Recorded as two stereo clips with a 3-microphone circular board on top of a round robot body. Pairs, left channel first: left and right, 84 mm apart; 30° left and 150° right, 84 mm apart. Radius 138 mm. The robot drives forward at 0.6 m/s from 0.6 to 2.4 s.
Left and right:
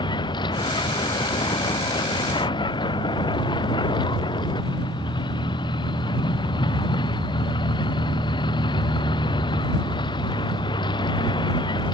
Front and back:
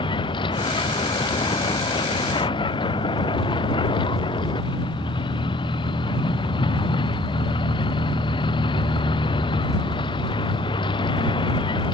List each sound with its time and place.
0.0 s a vehicle: 55° left